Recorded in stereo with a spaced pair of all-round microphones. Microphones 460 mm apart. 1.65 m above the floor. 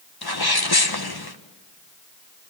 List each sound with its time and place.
0.2 s a sneeze: 50° left (ahead or behind), 1.6 m